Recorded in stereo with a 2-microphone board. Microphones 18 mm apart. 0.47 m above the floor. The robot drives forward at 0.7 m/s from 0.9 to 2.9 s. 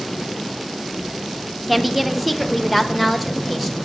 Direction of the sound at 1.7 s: Centre (ahead or behind).